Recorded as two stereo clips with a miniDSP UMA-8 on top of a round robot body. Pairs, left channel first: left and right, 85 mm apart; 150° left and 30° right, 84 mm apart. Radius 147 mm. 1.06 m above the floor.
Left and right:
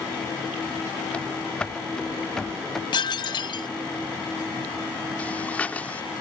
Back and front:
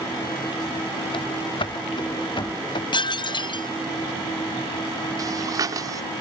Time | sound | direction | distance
1.1 | running footsteps | 165° left | ?
2.9 | dishes clattering | 120° left | ?
5.2 | breathing | 15° left | ?